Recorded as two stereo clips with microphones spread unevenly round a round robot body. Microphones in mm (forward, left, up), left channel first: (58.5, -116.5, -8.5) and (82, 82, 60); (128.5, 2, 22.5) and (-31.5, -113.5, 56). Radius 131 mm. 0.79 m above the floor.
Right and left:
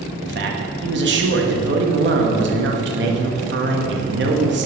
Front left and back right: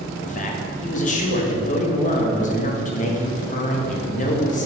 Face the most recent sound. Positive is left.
turn(degrees=55)